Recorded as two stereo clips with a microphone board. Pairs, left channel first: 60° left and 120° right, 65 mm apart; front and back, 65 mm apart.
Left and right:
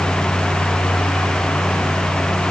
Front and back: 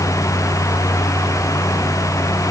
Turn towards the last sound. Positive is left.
No sound to turn to.